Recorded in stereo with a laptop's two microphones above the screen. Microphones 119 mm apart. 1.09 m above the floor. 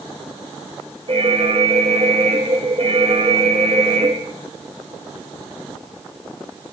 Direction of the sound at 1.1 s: 55° right (ahead or behind).